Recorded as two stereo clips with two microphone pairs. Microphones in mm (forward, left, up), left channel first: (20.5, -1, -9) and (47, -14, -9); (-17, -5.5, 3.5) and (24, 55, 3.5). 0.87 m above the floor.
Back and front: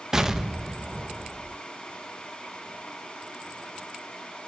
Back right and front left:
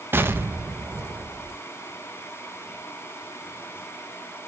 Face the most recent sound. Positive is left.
turn(degrees=30)